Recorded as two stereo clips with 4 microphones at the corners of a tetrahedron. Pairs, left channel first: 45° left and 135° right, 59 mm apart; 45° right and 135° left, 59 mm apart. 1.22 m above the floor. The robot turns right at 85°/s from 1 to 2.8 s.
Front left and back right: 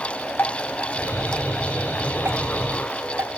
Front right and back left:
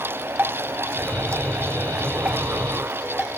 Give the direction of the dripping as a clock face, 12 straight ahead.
9 o'clock.